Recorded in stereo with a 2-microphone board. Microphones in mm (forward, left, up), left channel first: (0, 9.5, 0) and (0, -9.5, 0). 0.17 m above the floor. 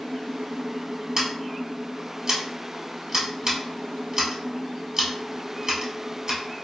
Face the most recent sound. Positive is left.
turn(degrees=-30)  # may be behind; listen again after turning